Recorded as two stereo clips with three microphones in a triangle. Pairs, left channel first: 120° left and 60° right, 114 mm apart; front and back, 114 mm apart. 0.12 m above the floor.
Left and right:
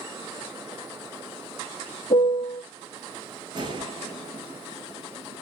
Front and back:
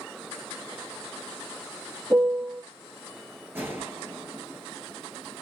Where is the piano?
105° left, 1.5 m.